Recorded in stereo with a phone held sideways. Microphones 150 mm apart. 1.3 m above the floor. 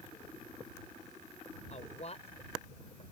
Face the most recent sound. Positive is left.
turn(degrees=40)  # may be behind; listen again after turning